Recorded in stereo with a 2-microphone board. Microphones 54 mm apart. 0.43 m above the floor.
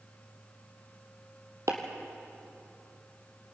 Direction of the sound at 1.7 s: 70° right (ahead or behind).